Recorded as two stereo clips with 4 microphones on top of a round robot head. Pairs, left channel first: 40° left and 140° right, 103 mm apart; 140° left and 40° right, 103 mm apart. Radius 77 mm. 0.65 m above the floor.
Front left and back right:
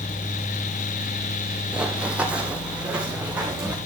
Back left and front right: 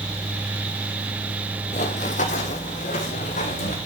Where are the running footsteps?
135° left, 1.1 m; by 3.8 s 140° left, 3.5 m.